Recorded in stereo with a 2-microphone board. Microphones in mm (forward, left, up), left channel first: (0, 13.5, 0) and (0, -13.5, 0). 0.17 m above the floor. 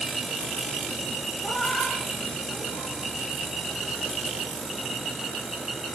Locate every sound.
1.4 s a cat meowing: 55° left (ahead or behind), 6.5 m